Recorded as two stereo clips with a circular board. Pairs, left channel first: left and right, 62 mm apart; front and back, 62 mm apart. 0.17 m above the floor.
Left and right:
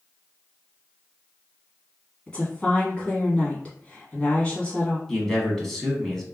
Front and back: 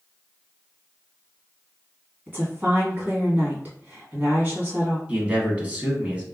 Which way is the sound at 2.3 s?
145° left.